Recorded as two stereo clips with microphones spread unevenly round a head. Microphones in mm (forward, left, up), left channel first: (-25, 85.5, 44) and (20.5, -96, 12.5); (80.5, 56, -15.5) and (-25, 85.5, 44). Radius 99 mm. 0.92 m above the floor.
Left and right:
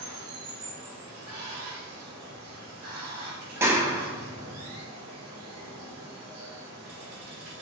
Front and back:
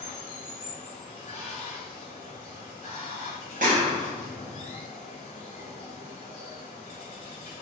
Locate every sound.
0.0 s running water: 75° right, 0.9 m
3.6 s a clap: 155° right, 0.6 m